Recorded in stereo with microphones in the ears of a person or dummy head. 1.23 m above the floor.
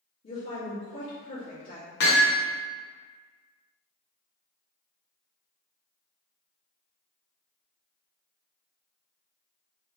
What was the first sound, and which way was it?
A woman speaking, 60° left (ahead or behind).